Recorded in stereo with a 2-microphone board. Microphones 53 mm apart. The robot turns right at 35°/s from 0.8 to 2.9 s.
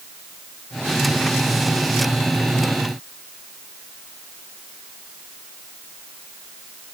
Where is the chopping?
No chopping in this recording.